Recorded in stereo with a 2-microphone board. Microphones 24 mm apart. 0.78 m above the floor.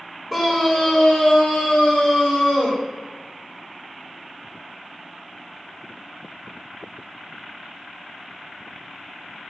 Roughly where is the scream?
Centre.